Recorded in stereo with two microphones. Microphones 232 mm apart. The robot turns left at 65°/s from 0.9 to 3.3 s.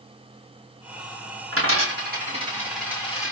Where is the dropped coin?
75° right (ahead or behind), 2.5 m; by 3.3 s 35° left (ahead or behind), 2.5 m.